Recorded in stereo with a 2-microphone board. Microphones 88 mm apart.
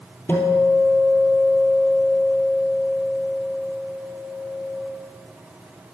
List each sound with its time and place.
0.3 s a guitar: 20° left (ahead or behind), 2 m